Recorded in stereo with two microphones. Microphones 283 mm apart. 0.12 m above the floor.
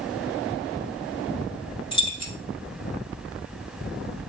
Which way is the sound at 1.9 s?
20° left (ahead or behind).